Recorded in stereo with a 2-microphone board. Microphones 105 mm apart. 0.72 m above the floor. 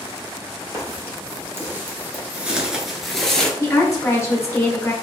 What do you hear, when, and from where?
0.7 s footsteps: 25° right (ahead or behind), 1.2 m; by 3.5 s 5° left (ahead or behind), 0.8 m
3.6 s a woman speaking: 25° left (ahead or behind), 0.7 m